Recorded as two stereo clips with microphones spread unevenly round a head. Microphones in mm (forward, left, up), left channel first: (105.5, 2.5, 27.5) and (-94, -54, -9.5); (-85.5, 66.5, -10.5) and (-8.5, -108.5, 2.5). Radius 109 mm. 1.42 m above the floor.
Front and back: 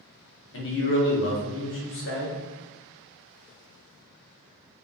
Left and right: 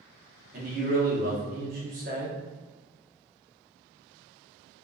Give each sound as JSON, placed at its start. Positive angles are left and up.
{"t": 0.5, "sound": "a man speaking", "azimuth_deg": -10, "distance_m": 1.0}